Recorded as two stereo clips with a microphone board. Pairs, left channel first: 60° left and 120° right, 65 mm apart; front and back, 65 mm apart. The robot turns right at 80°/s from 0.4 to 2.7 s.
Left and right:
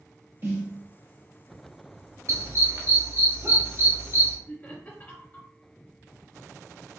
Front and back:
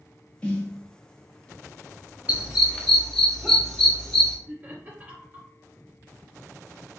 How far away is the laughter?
About 1.4 m.